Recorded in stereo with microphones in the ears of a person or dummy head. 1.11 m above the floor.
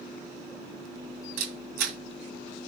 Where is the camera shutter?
60° right (ahead or behind), 2.5 m.